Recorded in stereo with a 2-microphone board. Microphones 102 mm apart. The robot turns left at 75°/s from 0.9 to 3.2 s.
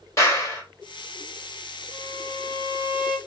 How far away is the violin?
About 2 m.